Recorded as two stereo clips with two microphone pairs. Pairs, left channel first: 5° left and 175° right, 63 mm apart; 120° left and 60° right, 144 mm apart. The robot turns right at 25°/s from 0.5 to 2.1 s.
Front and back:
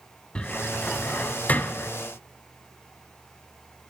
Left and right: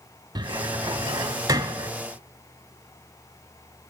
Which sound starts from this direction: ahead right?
A cupboard door, at 0.3 s.